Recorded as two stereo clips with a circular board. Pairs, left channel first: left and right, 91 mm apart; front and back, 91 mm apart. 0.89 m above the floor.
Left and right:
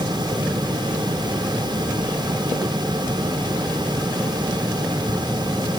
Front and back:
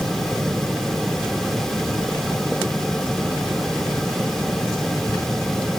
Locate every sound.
Only background noise.